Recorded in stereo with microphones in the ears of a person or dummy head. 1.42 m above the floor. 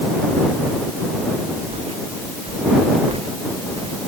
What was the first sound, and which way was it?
Footsteps, 25° right (ahead or behind).